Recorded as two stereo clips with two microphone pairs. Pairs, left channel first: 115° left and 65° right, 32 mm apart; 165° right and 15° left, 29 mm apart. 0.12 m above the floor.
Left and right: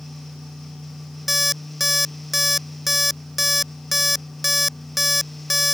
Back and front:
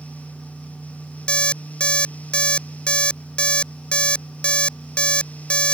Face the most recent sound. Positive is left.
turn(degrees=-150)